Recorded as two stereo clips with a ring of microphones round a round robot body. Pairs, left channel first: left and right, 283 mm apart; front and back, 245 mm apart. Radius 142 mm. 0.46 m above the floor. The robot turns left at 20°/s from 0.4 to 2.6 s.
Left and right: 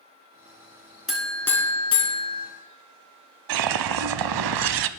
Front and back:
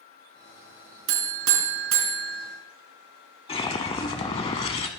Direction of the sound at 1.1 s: Straight behind.